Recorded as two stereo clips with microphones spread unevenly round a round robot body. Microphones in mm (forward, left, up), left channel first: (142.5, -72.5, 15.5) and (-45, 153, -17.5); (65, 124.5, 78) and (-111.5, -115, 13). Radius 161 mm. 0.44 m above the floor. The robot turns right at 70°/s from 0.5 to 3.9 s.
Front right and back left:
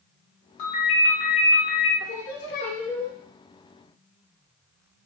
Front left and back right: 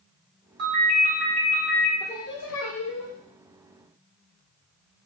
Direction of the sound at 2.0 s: 25° right.